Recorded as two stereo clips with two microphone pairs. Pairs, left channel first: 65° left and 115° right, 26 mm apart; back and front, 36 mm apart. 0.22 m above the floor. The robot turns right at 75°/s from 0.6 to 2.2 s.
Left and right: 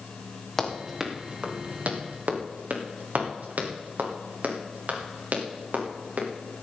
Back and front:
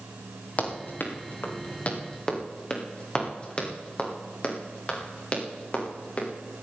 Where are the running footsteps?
135° left, 3 m; by 6.3 s 135° right, 5 m.